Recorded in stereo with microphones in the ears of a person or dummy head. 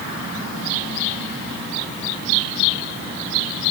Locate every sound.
Only background noise.